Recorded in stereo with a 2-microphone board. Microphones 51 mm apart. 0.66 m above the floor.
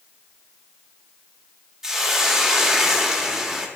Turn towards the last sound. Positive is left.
turn(degrees=-5)  # may be behind; listen again after turning